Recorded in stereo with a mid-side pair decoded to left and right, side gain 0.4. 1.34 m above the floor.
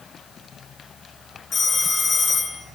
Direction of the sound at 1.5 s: 50° left.